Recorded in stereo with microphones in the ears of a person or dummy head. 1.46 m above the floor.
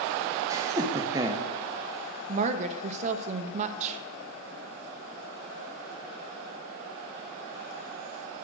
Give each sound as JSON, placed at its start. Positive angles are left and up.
{"t": 0.5, "sound": "laughter", "side_deg": -20, "distance_m": 1.0}
{"t": 2.3, "sound": "a woman speaking", "side_deg": -40, "distance_m": 0.7}